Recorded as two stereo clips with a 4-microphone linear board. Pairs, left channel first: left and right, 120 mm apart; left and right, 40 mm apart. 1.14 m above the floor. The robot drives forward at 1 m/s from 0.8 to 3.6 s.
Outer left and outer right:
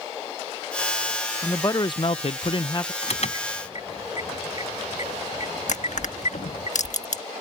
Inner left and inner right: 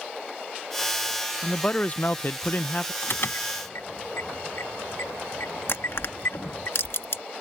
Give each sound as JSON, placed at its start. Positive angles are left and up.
{"t": 1.4, "sound": "a man speaking", "side_deg": 25}
{"t": 3.0, "sound": "an alarm", "side_deg": 60}
{"t": 5.7, "sound": "crushing", "side_deg": 80}